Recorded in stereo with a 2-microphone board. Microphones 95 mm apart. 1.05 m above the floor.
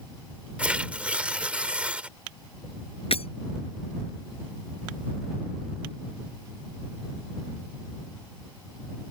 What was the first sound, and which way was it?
Tearing paper, 15° right (ahead or behind).